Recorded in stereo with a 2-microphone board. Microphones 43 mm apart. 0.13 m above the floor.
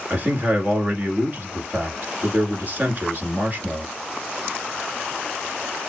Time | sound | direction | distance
0.1 | a man speaking | 40° right (ahead or behind) | 1.5 m